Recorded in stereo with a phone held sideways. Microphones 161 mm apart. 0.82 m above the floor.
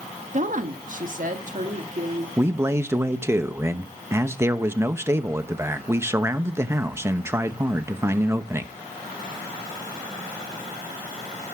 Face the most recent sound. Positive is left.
turn(degrees=-15)  # may be behind; listen again after turning